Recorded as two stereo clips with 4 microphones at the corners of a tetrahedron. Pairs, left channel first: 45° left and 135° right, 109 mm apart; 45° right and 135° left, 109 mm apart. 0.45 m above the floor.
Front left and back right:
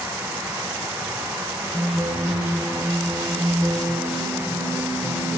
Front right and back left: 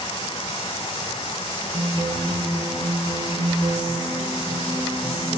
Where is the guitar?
170° left, 3.5 m.